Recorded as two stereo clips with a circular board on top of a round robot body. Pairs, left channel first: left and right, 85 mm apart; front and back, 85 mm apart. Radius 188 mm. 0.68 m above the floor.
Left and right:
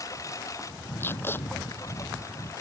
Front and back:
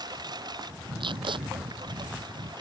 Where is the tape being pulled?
155° left.